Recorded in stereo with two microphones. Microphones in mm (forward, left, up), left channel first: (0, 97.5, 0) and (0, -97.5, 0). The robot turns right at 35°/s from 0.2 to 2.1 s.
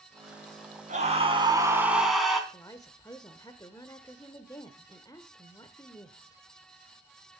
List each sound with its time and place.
0.9 s a scream: 45° right, 3.5 m; by 2.4 s straight ahead, 3.5 m
2.5 s a woman speaking: 20° left (ahead or behind), 0.9 m